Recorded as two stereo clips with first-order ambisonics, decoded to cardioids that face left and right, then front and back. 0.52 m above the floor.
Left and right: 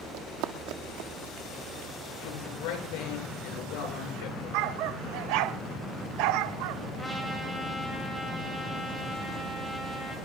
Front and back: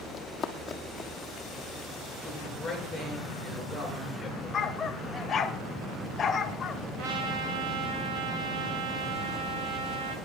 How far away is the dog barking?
About 0.8 m.